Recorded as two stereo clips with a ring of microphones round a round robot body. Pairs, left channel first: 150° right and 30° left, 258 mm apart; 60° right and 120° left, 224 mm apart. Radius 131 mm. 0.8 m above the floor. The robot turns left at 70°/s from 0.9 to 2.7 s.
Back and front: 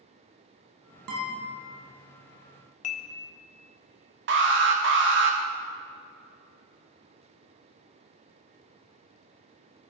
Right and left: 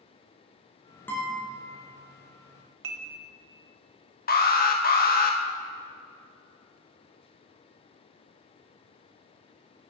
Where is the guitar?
20° left, 2.5 m; by 1.5 s 5° right, 2.5 m.